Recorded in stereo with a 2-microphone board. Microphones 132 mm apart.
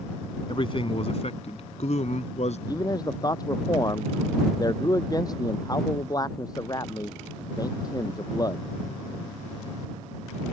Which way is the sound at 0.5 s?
40° left (ahead or behind).